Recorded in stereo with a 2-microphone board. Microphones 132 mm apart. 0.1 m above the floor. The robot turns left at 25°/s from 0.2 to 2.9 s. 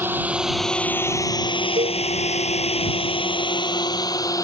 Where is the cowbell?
80° right; by 2.0 s 70° right (ahead or behind).